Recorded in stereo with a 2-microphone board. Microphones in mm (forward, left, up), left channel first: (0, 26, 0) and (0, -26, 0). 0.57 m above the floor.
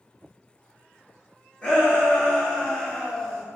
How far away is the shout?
About 1.2 m.